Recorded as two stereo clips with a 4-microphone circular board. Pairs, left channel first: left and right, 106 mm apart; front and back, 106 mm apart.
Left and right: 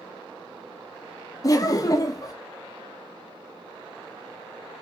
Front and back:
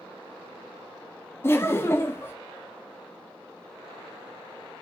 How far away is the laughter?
About 0.6 m.